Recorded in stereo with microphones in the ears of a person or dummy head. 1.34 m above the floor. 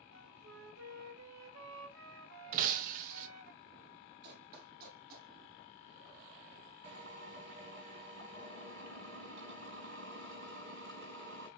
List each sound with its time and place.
0.1 s a flute: 70° right (ahead or behind), 1.5 m
2.5 s breaking glass: 45° right (ahead or behind), 0.7 m
4.2 s running footsteps: 55° right (ahead or behind), 2.5 m; by 5.3 s 50° right (ahead or behind), 3 m
6.8 s a drill: 70° right (ahead or behind), 4 m